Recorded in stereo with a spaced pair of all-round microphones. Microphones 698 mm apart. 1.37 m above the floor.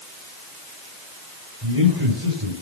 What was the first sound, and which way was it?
A man speaking, 35° right (ahead or behind).